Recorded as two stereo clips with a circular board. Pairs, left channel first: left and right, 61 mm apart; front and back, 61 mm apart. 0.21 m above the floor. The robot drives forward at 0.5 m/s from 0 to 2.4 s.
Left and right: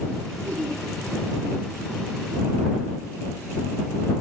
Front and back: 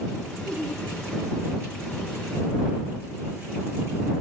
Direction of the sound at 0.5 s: 70° right.